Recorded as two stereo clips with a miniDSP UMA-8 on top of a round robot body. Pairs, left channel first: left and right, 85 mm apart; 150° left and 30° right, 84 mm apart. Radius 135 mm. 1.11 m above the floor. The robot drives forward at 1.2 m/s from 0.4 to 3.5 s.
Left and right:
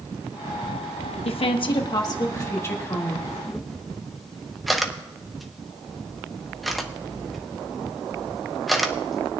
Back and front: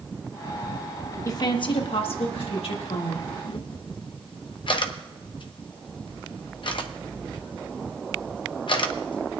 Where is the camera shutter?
Straight behind, 0.5 m.